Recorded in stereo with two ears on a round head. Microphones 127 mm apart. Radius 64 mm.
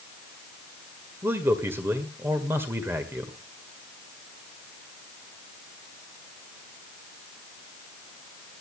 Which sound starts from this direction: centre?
A man speaking, at 1.2 s.